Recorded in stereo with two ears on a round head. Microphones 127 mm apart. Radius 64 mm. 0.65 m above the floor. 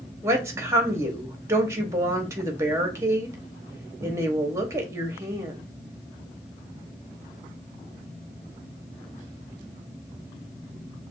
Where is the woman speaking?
20° right (ahead or behind), 0.9 m.